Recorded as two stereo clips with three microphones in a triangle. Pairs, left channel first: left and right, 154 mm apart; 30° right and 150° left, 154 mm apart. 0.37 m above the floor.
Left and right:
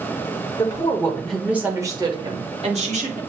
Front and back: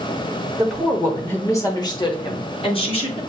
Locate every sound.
0.6 s a woman speaking: 70° left, 1.0 m; by 3.2 s 70° right, 1.6 m